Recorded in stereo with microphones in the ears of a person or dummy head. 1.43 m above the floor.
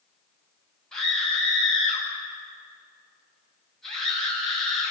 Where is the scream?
Centre (ahead or behind), 8.5 m.